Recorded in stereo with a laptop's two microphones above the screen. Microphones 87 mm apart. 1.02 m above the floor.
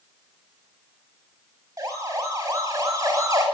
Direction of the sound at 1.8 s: 45° right (ahead or behind).